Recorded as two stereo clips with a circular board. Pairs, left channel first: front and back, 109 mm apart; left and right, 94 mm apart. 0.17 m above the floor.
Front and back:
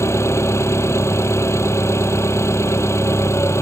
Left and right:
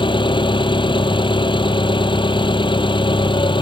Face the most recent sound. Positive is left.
turn(degrees=65)